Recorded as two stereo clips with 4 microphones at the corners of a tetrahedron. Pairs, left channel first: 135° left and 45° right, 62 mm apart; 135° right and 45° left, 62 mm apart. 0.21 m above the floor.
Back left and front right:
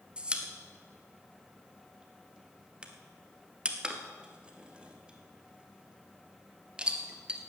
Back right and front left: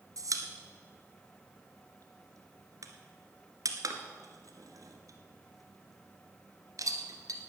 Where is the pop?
30° left, 1.3 m.